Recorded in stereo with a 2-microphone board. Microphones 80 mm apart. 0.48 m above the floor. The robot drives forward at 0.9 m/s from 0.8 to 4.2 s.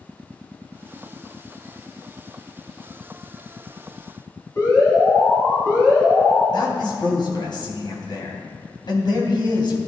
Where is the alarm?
40° left (ahead or behind), 5 m.